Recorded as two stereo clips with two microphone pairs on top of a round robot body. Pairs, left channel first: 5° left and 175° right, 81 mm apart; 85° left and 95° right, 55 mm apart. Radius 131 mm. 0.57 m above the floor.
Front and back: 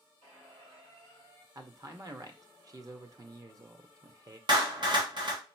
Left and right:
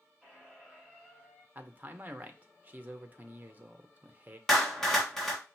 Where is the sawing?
No sawing in this recording.